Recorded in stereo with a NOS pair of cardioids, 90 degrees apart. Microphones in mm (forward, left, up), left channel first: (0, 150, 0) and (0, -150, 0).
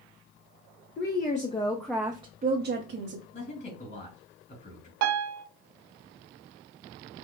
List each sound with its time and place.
1.0 s a woman speaking: 40° left, 0.8 m; by 3.2 s 55° right, 0.9 m
3.3 s a man speaking: 35° left, 2.5 m
5.0 s a piano: 65° right, 0.6 m